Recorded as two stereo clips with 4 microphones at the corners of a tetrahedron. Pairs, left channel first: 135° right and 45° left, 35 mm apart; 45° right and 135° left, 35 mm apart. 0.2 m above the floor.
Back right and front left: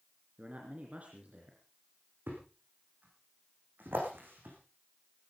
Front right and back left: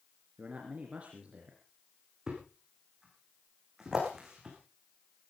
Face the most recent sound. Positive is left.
turn(degrees=60)